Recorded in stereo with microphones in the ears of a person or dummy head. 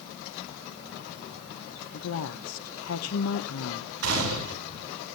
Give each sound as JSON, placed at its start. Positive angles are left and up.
{"t": 1.9, "sound": "a woman speaking", "side_deg": 75, "distance_m": 0.9}
{"t": 4.0, "sound": "a gunshot", "side_deg": -80, "distance_m": 8.5}